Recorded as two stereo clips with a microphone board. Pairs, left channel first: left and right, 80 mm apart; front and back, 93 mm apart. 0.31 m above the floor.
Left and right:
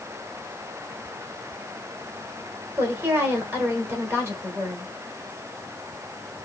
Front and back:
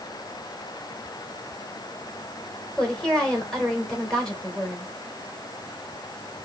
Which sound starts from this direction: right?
A woman speaking, at 2.8 s.